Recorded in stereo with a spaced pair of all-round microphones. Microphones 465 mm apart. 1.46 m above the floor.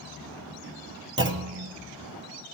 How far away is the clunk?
About 0.7 m.